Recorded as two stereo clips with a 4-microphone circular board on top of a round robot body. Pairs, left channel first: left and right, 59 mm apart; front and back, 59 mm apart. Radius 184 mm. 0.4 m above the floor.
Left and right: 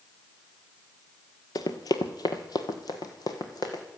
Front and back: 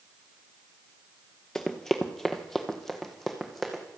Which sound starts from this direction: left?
Running footsteps, at 1.6 s.